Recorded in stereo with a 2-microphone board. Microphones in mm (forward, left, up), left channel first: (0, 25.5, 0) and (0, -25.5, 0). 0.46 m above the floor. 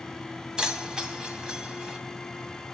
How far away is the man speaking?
No man speaking in this recording.